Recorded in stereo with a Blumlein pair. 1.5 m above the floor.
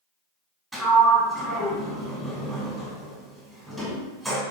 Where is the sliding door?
10° right, 1.0 m.